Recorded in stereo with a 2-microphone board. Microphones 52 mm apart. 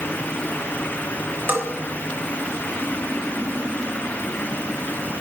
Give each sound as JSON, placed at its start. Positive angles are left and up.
{"t": 1.5, "sound": "a bell", "side_deg": -45, "distance_m": 2.5}